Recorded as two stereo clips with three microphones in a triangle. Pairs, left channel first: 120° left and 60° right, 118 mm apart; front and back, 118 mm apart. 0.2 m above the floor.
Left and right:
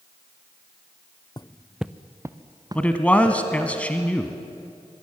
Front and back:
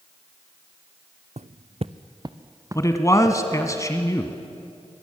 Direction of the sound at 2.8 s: 45° left.